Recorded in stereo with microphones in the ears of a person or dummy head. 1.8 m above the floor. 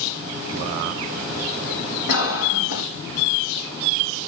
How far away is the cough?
About 5 m.